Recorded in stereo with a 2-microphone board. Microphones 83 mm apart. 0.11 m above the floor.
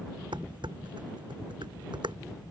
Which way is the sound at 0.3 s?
75° right (ahead or behind).